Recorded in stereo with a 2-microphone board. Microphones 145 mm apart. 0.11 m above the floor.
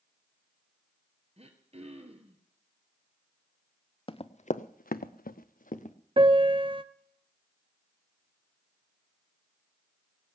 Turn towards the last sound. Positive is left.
turn(degrees=-40)  # may be behind; listen again after turning